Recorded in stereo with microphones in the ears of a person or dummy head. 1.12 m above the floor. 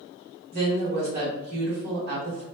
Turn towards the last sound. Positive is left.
turn(degrees=-55)  # may be behind; listen again after turning